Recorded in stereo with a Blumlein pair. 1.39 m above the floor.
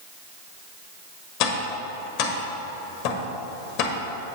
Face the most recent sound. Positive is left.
turn(degrees=40)